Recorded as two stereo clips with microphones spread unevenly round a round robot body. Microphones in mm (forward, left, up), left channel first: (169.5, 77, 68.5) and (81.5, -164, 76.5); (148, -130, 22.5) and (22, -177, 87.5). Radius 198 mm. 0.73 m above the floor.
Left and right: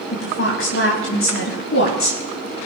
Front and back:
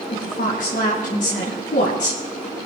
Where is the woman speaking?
35° left, 5 m.